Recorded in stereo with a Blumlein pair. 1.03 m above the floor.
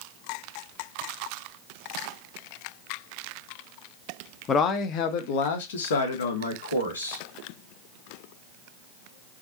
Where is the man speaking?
25° left, 0.8 m; by 7.2 s 75° left, 1.8 m.